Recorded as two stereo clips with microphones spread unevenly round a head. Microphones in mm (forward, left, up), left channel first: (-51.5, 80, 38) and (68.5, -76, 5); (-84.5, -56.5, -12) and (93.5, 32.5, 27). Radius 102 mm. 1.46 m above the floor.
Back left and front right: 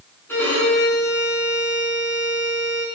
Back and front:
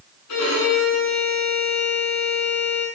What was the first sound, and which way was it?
A violin, 155° right.